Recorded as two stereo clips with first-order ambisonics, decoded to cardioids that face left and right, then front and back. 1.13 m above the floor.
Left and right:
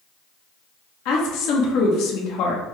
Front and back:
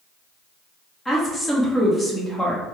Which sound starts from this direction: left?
A woman speaking, at 1.1 s.